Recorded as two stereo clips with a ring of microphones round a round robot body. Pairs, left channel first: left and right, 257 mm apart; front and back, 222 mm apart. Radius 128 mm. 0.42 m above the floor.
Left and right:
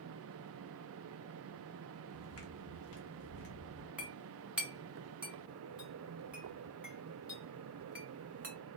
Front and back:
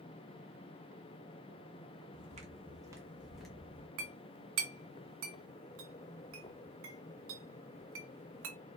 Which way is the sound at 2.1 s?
130° left.